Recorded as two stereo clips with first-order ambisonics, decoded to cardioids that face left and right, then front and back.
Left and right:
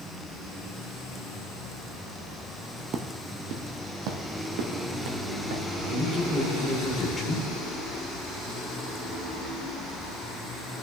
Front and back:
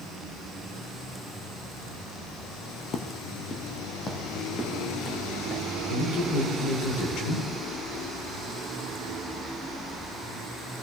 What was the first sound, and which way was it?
Footsteps, 45° right.